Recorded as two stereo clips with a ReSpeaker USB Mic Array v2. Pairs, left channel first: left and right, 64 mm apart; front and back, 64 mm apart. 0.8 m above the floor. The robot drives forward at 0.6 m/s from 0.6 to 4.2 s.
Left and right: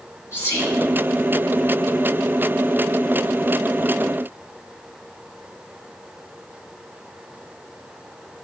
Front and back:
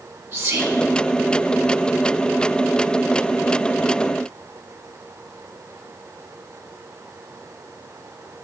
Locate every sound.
0.3 s whispering: 125° left, 2 m